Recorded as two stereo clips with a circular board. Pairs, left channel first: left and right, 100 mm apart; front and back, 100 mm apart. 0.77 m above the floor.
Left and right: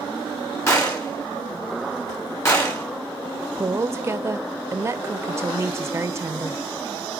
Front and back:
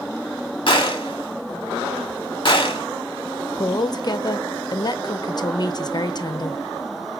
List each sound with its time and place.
0.7 s a gunshot: 30° left, 1.6 m
3.5 s a woman speaking: 35° right, 0.6 m